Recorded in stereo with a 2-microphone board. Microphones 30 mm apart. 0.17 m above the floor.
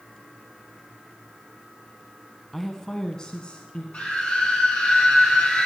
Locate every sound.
2.5 s a woman speaking: 5° left (ahead or behind), 1.2 m; by 3.8 s 40° left (ahead or behind), 1.7 m
3.9 s a scream: 45° left (ahead or behind), 6.5 m